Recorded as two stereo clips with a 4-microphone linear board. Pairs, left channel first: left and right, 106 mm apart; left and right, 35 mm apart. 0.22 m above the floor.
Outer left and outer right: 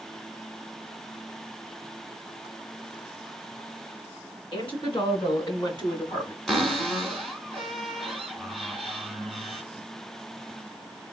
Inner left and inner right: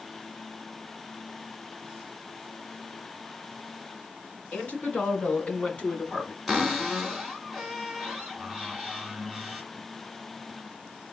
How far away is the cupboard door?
About 1.3 m.